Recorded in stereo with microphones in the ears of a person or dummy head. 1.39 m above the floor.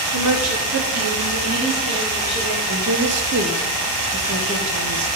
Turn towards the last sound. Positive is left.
turn(degrees=-70)  # may be behind; listen again after turning